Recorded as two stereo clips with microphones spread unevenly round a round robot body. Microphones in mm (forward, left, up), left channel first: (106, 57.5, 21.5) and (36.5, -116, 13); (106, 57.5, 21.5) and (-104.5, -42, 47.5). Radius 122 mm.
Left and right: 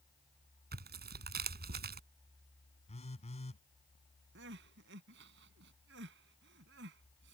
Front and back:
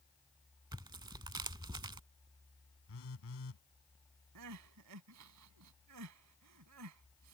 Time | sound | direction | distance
0.7 | tearing paper | 80° right | ?
2.9 | a phone buzzing | 15° left | ?
4.3 | crying | 145° right | ?